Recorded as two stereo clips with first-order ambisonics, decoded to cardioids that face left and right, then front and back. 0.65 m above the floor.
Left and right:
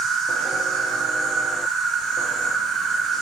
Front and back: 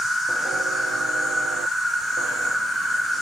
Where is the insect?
110° right, 2 m.